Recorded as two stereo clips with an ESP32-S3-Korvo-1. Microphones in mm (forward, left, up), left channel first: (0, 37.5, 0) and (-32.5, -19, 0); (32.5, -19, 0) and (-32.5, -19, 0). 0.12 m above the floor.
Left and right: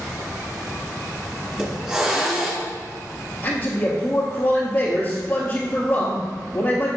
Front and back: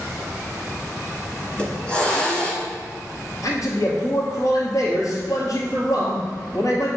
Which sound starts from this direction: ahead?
A man speaking, at 3.4 s.